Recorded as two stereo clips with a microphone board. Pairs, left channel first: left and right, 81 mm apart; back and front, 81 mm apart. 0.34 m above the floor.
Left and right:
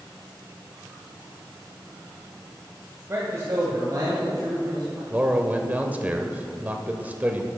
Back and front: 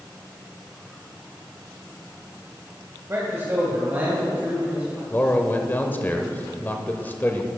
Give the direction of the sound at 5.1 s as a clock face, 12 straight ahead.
5 o'clock.